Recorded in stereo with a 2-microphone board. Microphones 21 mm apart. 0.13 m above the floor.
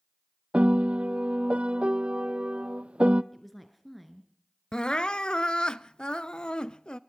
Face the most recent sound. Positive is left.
turn(degrees=45)  # may be behind; listen again after turning